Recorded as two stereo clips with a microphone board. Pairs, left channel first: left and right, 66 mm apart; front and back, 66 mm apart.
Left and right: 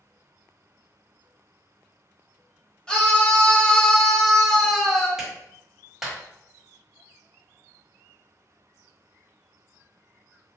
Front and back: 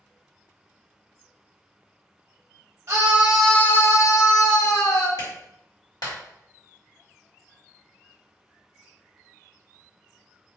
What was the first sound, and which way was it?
A scream, 155° left.